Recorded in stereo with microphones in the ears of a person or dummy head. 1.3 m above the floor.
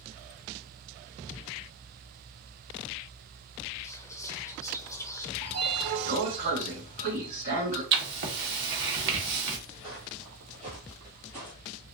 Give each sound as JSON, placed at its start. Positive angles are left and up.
{"t": 3.8, "sound": "whispering", "side_deg": 20, "distance_m": 0.6}
{"t": 5.4, "sound": "a sliding door", "side_deg": -45, "distance_m": 2.0}
{"t": 7.9, "sound": "writing", "side_deg": -60, "distance_m": 0.9}
{"t": 9.8, "sound": "footsteps", "side_deg": -25, "distance_m": 2.0}